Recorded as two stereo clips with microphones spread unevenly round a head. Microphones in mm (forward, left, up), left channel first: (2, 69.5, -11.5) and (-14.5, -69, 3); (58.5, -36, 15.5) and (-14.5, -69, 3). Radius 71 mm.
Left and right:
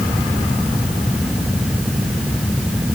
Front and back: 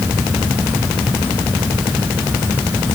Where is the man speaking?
No man speaking in this recording.